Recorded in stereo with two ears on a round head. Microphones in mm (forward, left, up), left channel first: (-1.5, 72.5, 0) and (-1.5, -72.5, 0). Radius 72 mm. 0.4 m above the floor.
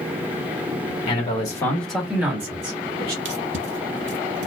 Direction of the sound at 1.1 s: 35° left (ahead or behind).